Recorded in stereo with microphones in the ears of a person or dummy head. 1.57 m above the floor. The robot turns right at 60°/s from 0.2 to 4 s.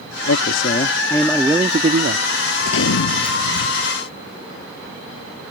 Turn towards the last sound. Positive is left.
turn(degrees=145)